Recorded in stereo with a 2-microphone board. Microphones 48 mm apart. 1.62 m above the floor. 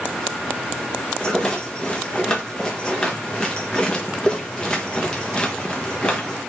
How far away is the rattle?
About 1.1 m.